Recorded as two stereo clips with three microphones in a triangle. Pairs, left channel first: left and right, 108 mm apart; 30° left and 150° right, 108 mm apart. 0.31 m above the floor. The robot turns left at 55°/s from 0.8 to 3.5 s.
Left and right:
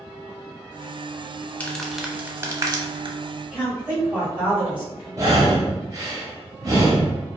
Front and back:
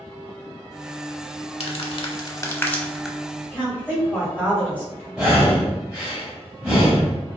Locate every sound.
1.6 s crumpling: 20° left, 0.5 m; by 3.2 s 65° right, 0.5 m
3.5 s a woman speaking: 30° right, 1.6 m
5.2 s breathing: 75° right, 1.0 m